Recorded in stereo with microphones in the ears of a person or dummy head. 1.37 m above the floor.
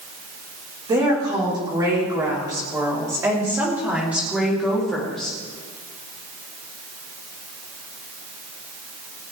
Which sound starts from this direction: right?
A woman speaking, at 0.9 s.